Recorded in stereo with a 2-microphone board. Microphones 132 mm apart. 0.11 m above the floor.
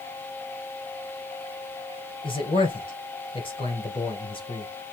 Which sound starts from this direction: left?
A man speaking, at 2.2 s.